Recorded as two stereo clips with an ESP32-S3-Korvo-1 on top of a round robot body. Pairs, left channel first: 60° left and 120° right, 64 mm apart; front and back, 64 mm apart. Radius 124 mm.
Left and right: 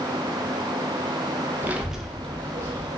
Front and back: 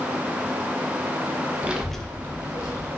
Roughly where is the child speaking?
Behind right.